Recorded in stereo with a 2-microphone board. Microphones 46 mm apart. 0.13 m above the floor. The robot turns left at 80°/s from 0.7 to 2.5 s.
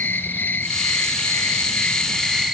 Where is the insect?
135° left, 0.9 m; by 2.5 s 10° right, 0.9 m.